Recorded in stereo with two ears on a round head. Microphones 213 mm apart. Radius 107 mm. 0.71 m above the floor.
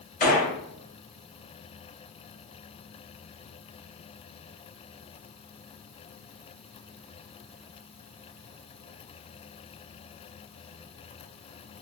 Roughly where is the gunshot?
Left.